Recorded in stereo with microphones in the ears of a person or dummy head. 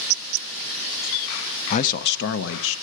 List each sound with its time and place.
1.7 s a man speaking: 35° left (ahead or behind), 0.6 m; by 2.8 s 75° left (ahead or behind), 1.3 m